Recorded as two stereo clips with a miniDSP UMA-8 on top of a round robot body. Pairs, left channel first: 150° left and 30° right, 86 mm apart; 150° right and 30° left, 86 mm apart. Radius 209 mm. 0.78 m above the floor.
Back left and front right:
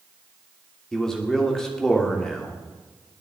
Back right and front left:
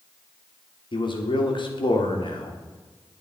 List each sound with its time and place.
0.9 s a man speaking: 125° right, 3 m